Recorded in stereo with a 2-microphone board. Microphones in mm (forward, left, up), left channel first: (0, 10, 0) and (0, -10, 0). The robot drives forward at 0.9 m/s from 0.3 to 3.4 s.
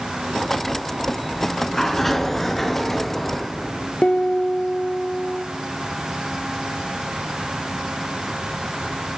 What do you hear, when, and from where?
1.3 s a sliding door: 20° left (ahead or behind), 1.1 m; by 3.9 s 10° left (ahead or behind), 2.5 m
4.0 s a piano: 60° left (ahead or behind), 1.1 m